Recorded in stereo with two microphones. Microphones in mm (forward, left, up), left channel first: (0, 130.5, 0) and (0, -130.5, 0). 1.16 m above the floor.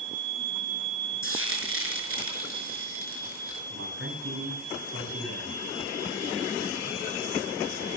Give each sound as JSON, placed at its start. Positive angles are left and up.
{"t": 1.2, "sound": "frying", "side_deg": -50, "distance_m": 5.5}
{"t": 3.7, "sound": "a man speaking", "side_deg": -55, "distance_m": 9.5}